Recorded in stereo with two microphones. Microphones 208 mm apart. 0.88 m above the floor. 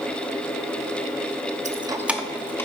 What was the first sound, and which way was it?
Keys jangling, 35° right (ahead or behind).